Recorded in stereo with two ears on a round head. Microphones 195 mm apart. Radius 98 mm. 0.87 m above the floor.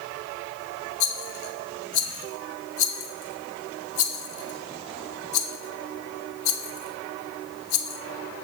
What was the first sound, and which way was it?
A rattle, 65° left (ahead or behind).